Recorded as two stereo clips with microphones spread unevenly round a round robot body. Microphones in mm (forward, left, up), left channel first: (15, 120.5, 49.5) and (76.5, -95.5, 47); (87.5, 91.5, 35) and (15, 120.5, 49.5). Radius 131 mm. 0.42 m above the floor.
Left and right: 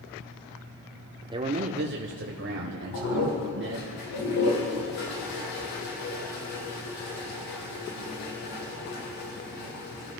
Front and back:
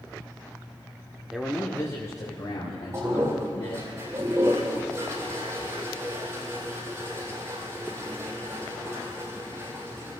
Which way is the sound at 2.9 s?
105° left.